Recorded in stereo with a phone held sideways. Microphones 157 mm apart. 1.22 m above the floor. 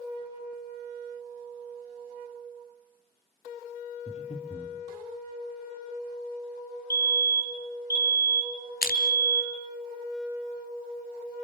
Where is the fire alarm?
25° right (ahead or behind), 2 m.